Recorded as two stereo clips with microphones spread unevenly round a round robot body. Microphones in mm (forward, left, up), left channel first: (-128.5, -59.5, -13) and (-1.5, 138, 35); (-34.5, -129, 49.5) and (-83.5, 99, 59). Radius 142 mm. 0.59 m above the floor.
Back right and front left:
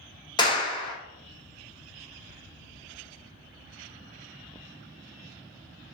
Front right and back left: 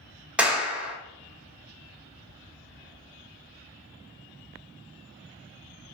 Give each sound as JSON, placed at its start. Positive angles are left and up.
{"t": 0.4, "sound": "a clap", "azimuth_deg": -170, "distance_m": 1.1}